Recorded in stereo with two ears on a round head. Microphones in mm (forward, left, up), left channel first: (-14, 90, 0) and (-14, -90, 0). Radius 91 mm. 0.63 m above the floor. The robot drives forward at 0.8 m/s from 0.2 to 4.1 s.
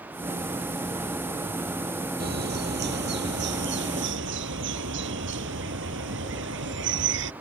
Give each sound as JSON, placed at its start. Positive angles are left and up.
{"t": 2.2, "sound": "a bird", "side_deg": -50}